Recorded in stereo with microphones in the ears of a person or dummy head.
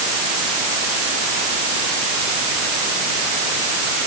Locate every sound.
Only background noise.